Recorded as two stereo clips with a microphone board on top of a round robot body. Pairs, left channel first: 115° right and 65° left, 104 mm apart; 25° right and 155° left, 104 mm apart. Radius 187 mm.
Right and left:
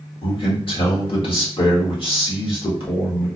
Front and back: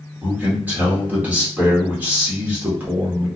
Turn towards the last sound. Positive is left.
turn(degrees=-130)